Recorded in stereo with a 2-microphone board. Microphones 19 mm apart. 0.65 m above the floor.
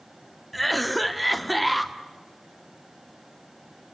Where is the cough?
Centre (ahead or behind), 1.3 m.